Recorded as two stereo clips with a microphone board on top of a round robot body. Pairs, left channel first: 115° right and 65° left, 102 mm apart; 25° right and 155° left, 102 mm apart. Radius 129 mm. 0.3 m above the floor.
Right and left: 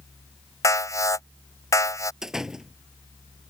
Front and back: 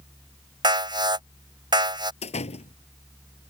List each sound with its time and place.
0.6 s an alarm: 165° right
2.2 s a door slam: 15° right